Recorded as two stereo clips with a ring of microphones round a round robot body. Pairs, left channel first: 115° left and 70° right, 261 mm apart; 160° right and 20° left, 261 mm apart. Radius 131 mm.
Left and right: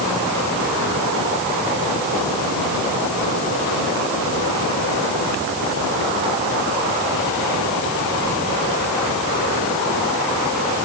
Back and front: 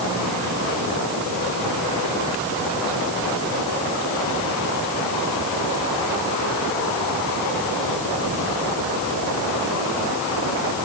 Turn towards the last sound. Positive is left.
No sound to turn to.